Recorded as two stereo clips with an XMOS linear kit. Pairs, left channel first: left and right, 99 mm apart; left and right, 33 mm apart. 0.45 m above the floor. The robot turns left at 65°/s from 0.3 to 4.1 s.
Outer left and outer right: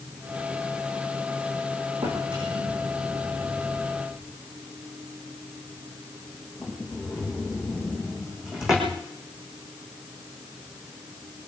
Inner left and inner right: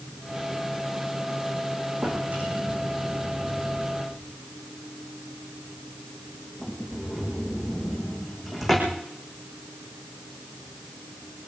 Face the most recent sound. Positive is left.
turn(degrees=-5)  # may be behind; listen again after turning